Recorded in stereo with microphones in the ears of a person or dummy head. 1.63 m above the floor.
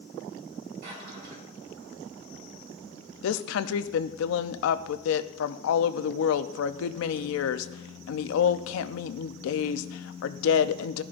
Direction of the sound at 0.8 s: 55° right (ahead or behind).